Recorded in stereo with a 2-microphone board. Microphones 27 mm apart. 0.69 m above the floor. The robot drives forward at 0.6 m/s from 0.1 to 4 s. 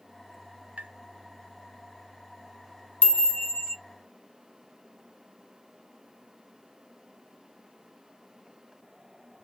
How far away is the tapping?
About 1.0 m.